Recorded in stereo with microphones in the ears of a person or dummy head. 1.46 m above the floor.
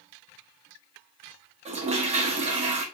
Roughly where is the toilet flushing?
Right.